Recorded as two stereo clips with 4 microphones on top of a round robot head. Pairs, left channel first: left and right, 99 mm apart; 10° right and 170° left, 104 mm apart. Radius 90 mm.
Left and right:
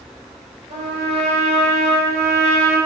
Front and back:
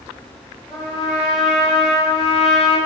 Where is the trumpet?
95° right, 4.5 m.